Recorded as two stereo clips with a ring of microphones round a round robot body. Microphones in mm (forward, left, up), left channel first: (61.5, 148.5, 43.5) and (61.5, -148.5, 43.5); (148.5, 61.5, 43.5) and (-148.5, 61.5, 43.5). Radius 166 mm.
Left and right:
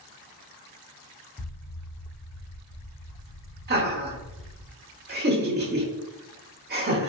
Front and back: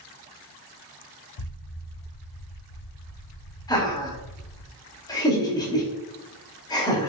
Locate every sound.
1.4 s an explosion: 5° left, 0.6 m
3.7 s laughter: 70° right, 1.2 m